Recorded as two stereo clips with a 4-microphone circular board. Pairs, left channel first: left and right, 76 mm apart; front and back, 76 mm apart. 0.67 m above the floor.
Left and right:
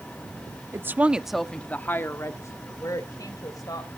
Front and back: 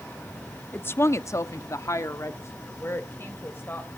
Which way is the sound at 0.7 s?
50° right.